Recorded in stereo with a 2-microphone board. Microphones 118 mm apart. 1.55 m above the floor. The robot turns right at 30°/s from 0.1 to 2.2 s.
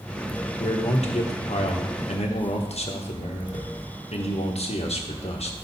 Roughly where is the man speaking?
Ahead left.